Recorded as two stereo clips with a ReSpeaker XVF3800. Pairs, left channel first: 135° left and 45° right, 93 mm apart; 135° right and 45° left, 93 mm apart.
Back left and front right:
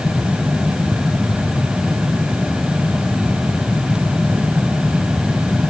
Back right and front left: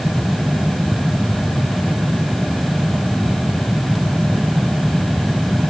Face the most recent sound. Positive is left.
No sound to turn to.